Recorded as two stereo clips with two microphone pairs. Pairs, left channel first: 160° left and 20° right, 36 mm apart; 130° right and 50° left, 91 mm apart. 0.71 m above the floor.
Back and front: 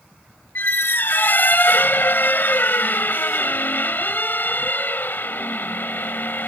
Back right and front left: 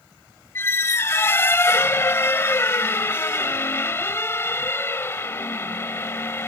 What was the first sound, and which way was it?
A squeak, 170° left.